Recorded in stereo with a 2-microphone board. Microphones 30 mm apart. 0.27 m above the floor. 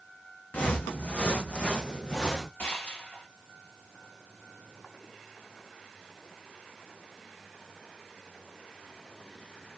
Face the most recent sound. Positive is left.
turn(degrees=70)  # may be behind; listen again after turning